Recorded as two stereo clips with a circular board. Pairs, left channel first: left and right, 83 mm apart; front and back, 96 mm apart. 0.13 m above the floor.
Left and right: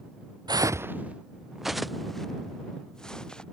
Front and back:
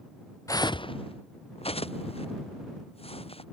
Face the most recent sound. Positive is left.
turn(degrees=10)